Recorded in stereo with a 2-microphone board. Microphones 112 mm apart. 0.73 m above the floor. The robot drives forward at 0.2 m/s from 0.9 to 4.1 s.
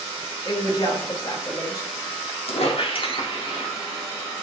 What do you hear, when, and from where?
0.5 s a woman speaking: 40° left (ahead or behind), 0.7 m; by 1.9 s 35° left (ahead or behind), 0.8 m
2.5 s a squeak: 65° left (ahead or behind), 0.6 m; by 3.7 s 45° left (ahead or behind), 0.8 m